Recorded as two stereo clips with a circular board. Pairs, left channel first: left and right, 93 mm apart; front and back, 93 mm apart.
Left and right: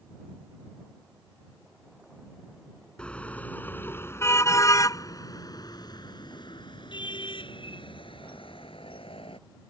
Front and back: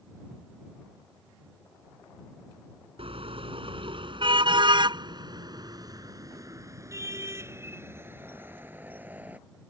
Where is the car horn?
170° left; by 9.4 s 105° left.